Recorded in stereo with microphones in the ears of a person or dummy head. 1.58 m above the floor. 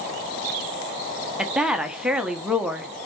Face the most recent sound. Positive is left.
turn(degrees=-5)  # may be behind; listen again after turning